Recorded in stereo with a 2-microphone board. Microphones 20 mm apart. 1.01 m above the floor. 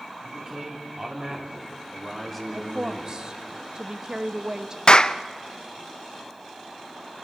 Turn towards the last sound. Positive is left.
turn(degrees=40)  # may be behind; listen again after turning